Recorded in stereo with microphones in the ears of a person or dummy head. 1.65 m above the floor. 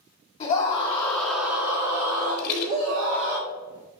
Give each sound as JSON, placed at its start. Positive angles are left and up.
{"t": 0.4, "sound": "a scream", "side_deg": 40, "distance_m": 1.6}
{"t": 2.4, "sound": "a rattle", "side_deg": 45, "distance_m": 1.1}